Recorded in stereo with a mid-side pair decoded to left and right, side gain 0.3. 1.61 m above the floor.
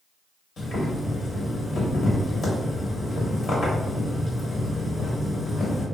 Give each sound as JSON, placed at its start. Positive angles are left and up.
{"t": 0.6, "sound": "boiling", "azimuth_deg": 65, "distance_m": 1.6}